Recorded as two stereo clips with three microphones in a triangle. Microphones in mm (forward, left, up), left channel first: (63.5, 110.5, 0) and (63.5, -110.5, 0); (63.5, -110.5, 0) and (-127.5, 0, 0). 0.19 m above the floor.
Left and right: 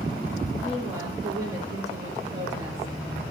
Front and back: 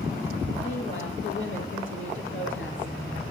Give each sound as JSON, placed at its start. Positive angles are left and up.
{"t": 0.6, "sound": "a woman speaking", "azimuth_deg": -15, "distance_m": 3.5}